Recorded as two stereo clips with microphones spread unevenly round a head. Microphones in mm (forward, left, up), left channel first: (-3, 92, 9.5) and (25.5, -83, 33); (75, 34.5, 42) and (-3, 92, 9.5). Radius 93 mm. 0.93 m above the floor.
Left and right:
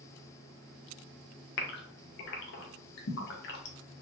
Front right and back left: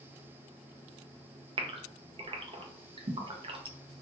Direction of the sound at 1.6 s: 120° left.